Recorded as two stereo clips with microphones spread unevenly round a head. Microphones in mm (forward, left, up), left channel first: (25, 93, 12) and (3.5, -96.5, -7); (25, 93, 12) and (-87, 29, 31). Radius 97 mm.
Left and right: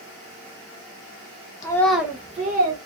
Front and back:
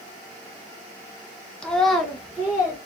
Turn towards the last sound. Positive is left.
turn(degrees=-80)